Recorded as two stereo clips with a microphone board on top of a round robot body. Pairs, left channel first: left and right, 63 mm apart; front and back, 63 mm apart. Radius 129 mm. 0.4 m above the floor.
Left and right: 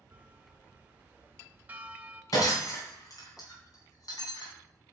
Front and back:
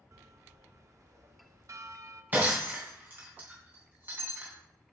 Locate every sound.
0.1 s a bell: 150° right, 0.8 m
2.3 s breaking glass: 120° left, 3 m